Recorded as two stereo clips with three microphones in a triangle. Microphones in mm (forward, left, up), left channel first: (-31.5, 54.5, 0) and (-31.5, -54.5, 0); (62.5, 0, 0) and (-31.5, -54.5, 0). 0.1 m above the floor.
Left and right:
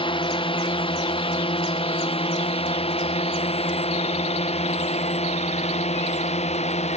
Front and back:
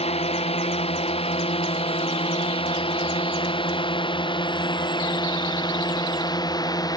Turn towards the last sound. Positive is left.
turn(degrees=85)